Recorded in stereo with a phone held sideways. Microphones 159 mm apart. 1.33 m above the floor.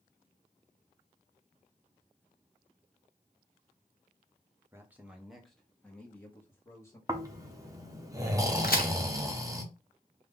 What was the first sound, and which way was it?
A man speaking, 15° right (ahead or behind).